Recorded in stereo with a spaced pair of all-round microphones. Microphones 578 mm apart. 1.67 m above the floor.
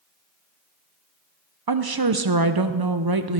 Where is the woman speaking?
40° right (ahead or behind), 0.7 m.